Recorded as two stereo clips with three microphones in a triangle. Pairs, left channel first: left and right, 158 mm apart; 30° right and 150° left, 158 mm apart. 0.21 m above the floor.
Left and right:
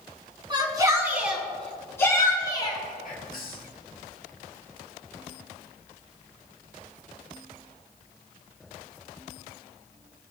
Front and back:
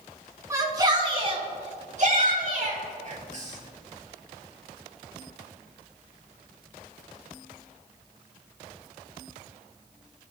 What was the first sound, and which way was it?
A shout, 140° right.